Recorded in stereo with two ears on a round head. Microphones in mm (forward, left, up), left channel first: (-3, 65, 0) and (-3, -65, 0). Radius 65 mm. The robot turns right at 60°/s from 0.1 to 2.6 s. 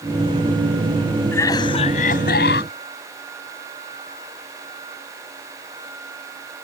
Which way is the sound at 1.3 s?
15° left.